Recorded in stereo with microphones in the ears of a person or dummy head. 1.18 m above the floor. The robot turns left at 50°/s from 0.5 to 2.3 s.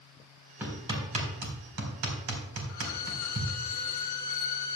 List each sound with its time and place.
0.6 s hammering: 15° right (ahead or behind), 4 m; by 3.5 s 80° right, 4 m
2.7 s a violin: 55° left (ahead or behind), 1.4 m